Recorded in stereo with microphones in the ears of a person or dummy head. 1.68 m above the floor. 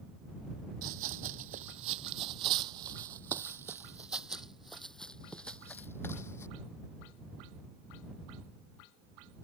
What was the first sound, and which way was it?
Running footsteps, 40° right (ahead or behind).